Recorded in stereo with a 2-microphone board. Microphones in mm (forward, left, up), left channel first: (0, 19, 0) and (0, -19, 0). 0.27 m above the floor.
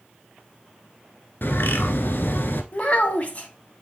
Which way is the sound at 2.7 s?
40° left (ahead or behind).